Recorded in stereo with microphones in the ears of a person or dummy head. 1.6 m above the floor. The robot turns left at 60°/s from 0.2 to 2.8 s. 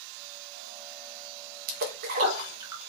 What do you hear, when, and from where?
1.7 s a splash: 55° right (ahead or behind), 0.6 m; by 2.8 s 15° right (ahead or behind), 0.6 m